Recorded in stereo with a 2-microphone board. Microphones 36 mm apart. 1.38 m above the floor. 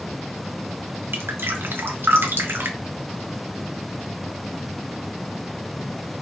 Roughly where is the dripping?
Right.